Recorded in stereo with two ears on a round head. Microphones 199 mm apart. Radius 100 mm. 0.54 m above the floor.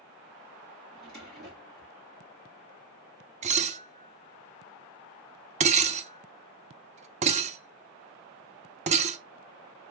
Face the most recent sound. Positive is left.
turn(degrees=-30)  # may be behind; listen again after turning